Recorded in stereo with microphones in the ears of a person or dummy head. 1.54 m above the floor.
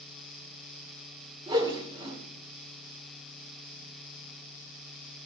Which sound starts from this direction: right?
A whoosh, at 1.5 s.